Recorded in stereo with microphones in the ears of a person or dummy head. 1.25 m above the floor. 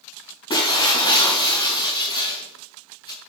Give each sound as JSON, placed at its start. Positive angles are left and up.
{"t": 0.5, "sound": "breaking glass", "side_deg": 25, "distance_m": 6.0}